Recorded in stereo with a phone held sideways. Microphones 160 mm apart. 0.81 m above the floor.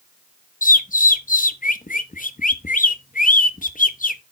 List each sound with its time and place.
0.6 s a bird: 55° left (ahead or behind), 0.6 m